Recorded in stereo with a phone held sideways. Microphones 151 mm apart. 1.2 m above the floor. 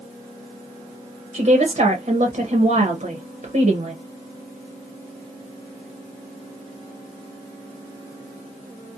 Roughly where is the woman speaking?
Right.